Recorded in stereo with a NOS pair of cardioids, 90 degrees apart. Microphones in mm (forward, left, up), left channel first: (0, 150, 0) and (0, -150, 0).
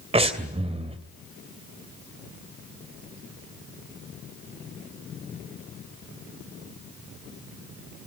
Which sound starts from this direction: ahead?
Breathing, at 0.1 s.